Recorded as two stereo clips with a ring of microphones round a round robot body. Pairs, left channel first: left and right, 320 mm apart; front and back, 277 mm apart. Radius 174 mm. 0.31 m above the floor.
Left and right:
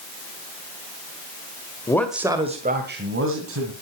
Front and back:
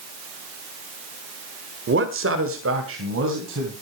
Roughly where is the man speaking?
Behind.